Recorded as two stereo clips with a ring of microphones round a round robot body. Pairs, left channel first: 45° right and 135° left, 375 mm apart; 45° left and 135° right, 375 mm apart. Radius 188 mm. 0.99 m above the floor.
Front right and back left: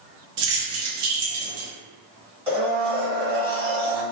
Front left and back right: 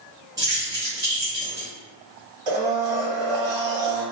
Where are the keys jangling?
145° left, 1.2 m.